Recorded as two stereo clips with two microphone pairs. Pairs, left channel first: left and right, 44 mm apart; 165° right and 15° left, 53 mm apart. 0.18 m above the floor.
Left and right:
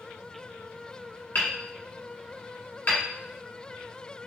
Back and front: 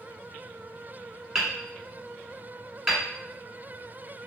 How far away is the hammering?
About 1.3 m.